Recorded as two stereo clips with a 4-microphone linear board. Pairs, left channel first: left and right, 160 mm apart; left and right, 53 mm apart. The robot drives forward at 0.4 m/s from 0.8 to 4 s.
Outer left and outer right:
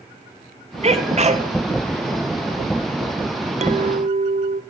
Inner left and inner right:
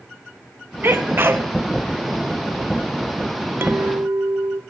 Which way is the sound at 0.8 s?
40° right (ahead or behind).